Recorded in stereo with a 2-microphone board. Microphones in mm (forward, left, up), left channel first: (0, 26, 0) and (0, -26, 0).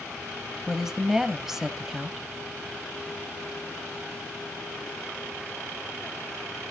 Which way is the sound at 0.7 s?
5° right (ahead or behind).